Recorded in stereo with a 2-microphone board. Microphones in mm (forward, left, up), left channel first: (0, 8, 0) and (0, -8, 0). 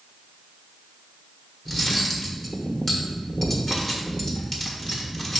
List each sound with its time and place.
1.6 s cutlery clinking: 30° left (ahead or behind), 1.3 m